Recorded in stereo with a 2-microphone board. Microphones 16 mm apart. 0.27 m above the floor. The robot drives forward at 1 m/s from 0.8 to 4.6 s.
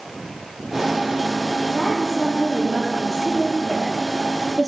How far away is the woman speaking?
About 8 m.